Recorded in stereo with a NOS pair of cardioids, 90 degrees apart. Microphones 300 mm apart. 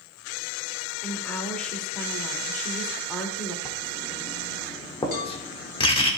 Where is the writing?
20° left, 1.6 m.